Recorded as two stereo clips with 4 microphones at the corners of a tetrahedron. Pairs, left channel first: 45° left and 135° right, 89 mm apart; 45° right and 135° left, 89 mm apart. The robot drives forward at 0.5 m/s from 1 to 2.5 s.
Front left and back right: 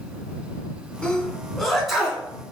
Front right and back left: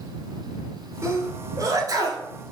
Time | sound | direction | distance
1.0 | a sneeze | 115° left | 1.2 m